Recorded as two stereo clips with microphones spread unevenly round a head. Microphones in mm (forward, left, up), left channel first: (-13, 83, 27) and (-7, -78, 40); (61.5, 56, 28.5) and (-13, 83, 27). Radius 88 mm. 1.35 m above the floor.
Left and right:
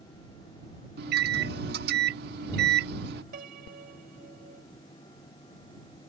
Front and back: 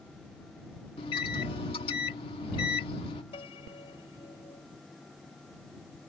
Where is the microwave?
55° right.